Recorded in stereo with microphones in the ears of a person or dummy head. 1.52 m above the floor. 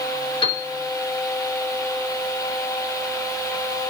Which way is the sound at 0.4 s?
40° left (ahead or behind).